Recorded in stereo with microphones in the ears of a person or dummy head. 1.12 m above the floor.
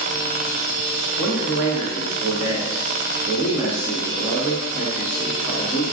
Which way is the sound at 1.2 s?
5° right (ahead or behind).